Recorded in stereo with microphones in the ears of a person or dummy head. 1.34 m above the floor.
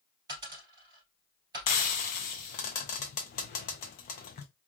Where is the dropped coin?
25° right (ahead or behind), 2.5 m.